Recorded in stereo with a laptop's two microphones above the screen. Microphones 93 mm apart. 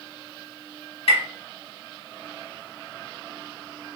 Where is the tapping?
80° left, 1.4 m.